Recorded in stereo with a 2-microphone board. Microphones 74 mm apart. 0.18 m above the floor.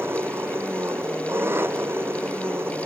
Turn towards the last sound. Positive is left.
turn(degrees=-30)  # may be behind; listen again after turning